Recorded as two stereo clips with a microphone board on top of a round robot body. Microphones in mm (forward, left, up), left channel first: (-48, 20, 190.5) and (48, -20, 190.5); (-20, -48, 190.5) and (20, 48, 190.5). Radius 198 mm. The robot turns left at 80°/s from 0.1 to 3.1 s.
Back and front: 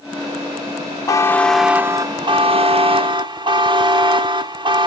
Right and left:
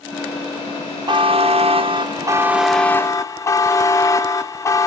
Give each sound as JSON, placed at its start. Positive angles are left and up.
{"t": 1.1, "sound": "a buzzer", "azimuth_deg": 105, "distance_m": 0.7}